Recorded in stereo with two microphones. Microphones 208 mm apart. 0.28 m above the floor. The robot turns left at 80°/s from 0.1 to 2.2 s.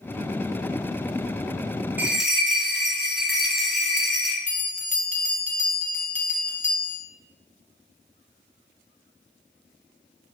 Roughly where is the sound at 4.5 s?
Left.